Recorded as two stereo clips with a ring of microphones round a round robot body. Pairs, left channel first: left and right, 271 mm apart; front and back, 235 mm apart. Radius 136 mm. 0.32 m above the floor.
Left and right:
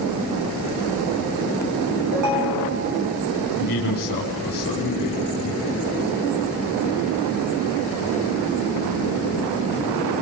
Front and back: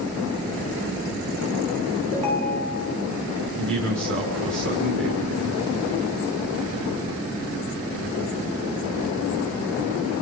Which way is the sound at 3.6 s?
145° left.